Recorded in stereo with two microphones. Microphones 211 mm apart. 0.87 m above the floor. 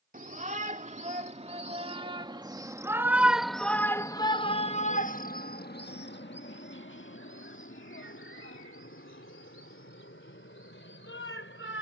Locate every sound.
0.1 s a shout: 40° right (ahead or behind); by 11.8 s 75° left (ahead or behind)